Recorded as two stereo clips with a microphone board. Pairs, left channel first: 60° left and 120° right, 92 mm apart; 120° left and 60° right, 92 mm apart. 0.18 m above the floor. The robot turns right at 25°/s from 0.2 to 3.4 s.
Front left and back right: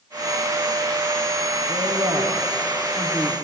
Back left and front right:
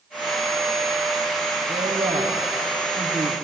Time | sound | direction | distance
1.7 | a woman speaking | 65° right | 4.5 m